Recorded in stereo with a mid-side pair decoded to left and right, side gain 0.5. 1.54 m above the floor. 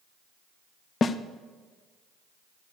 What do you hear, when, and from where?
1.0 s a snare drum: 35° left, 0.7 m